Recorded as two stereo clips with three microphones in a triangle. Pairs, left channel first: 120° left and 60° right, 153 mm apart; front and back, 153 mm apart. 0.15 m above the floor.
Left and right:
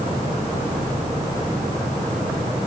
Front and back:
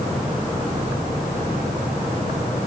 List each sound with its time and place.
Only background noise.